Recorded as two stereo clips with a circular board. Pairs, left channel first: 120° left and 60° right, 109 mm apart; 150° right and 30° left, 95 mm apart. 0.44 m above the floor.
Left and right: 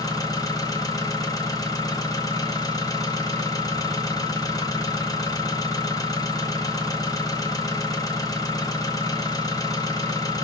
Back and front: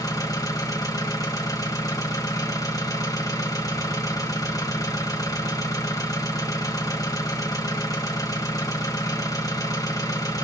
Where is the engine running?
170° left, 1.0 m.